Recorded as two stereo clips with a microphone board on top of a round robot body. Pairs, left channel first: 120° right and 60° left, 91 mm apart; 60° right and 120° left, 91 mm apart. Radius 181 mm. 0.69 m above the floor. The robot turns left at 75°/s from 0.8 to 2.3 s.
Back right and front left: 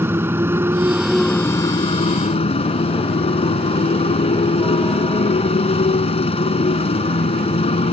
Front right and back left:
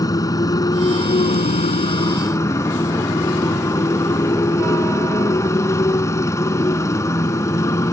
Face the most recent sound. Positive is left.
turn(degrees=-120)